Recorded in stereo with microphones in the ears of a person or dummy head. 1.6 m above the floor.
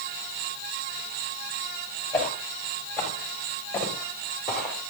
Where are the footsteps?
10° left (ahead or behind), 9 m; by 4.8 s 5° left (ahead or behind), 8 m.